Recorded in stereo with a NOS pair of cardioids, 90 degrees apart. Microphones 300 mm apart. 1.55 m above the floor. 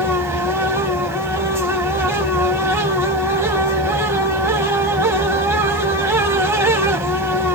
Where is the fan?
10° right, 1.0 m.